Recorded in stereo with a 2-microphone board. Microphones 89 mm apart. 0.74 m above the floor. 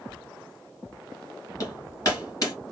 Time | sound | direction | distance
1.6 | hammering | 40° left (ahead or behind) | 2.5 m